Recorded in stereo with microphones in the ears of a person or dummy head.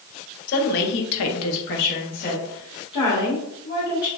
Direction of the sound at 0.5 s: 45° left (ahead or behind).